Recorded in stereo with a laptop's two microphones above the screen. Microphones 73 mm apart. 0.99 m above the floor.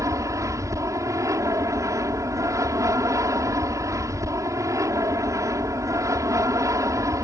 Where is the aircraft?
50° right (ahead or behind).